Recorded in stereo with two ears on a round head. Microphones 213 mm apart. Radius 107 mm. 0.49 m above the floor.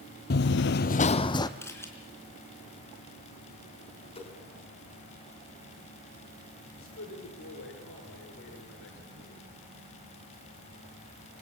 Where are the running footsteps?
40° left (ahead or behind), 0.8 m; by 1.5 s 15° left (ahead or behind), 1.3 m.